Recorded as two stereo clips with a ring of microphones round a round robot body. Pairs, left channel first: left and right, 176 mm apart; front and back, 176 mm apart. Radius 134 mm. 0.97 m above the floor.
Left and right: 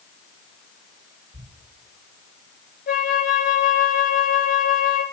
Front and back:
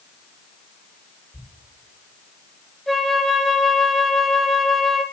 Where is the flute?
85° left, 0.9 m.